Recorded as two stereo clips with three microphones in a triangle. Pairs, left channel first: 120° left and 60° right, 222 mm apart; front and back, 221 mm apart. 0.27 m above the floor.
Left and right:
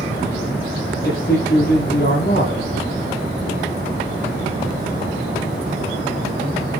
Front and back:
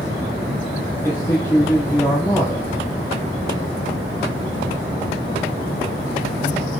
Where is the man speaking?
80° left, 9.5 m.